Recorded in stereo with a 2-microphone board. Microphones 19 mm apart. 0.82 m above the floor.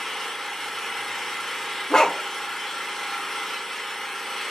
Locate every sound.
0.0 s an engine running: 15° left (ahead or behind), 1.2 m
1.9 s a dog barking: 40° left (ahead or behind), 0.5 m